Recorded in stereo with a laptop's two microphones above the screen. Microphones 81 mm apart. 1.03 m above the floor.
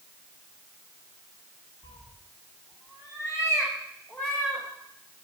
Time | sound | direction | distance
1.8 | a cat meowing | 75° left (ahead or behind) | 1.7 m